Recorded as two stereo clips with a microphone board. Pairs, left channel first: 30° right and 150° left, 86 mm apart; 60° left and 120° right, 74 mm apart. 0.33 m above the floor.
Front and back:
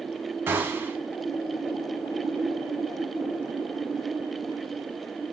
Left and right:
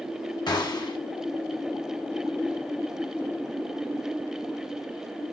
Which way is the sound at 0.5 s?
85° left.